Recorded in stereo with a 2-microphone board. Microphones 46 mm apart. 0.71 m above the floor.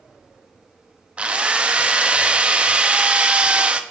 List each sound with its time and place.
1.2 s a drill: 25° right (ahead or behind), 0.6 m